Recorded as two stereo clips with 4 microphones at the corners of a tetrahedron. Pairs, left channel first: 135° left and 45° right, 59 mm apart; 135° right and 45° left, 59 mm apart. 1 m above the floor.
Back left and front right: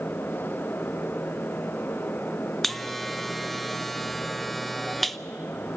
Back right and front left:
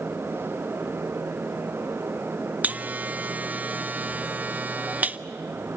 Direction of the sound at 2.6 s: 50° left.